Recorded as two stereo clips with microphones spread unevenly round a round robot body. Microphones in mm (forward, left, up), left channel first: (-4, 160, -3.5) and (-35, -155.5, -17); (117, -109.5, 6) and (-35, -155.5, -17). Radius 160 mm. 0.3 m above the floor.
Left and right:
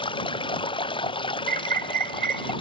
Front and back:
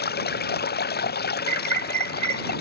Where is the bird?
65° right.